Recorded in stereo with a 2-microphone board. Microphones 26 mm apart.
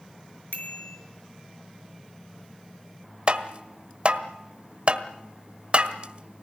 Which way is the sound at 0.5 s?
65° left (ahead or behind).